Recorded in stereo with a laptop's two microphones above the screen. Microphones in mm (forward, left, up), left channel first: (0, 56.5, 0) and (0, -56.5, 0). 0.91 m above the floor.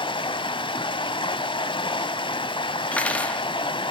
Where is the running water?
45° left (ahead or behind), 1.0 m.